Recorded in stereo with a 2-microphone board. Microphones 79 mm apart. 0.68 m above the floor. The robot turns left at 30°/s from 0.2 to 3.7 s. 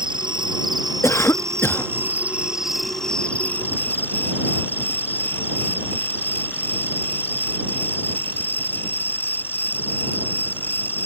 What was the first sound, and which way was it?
An insect, 100° right.